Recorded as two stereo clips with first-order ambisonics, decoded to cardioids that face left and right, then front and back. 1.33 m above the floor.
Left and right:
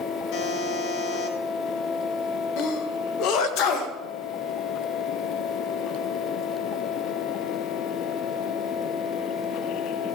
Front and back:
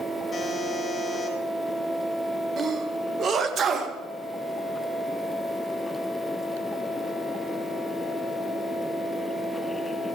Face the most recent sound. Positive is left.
turn(degrees=120)